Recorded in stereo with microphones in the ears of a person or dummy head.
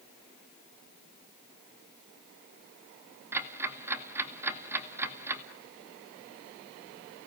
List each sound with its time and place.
3.3 s ticking: 15° right (ahead or behind), 2 m